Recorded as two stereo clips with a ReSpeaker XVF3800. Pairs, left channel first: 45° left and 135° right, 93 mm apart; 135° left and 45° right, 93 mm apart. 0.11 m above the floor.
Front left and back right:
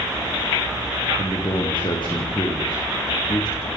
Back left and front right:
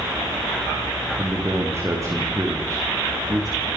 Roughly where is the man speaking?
Ahead.